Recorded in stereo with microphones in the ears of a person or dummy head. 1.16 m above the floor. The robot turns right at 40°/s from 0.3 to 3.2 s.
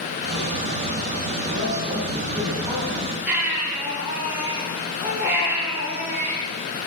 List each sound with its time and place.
1.5 s a man speaking: 55° right, 7 m; by 3.2 s 10° left, 7 m
3.3 s a baby crying: 10° right (ahead or behind), 6.5 m